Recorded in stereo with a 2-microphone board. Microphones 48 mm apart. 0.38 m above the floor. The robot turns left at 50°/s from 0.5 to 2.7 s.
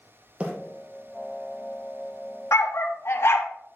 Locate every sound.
0.4 s a bird: 25° right (ahead or behind), 1.9 m
2.5 s a dog barking: 65° left (ahead or behind), 1.0 m; by 3.5 s 60° left (ahead or behind), 1.0 m